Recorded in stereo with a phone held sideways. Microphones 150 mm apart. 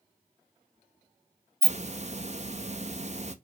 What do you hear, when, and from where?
1.6 s a hiss: 50° right (ahead or behind), 1.0 m